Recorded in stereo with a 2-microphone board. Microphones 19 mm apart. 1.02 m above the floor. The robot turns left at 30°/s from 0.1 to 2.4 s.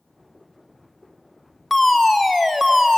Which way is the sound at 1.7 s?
5° left (ahead or behind).